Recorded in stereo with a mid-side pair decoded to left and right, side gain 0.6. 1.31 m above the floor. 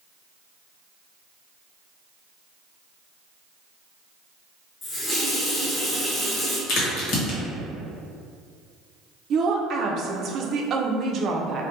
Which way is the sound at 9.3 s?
45° right.